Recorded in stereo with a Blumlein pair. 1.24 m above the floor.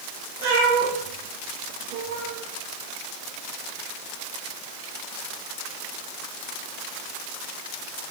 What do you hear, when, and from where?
0.4 s a cat meowing: 45° right, 4.5 m; by 2.4 s 60° right, 5.5 m